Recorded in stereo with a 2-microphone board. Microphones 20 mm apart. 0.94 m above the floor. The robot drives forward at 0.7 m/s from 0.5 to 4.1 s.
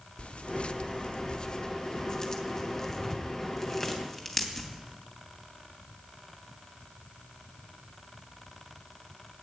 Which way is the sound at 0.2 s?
60° left (ahead or behind).